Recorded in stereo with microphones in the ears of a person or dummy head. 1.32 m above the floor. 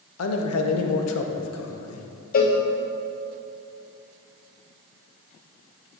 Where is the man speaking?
85° left, 0.7 m.